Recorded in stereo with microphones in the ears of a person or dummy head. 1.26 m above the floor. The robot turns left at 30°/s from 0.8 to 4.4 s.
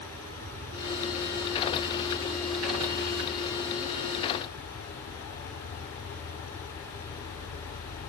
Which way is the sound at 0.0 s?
125° right.